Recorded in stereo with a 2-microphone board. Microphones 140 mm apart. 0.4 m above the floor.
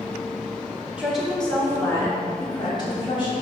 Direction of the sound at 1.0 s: 10° right (ahead or behind).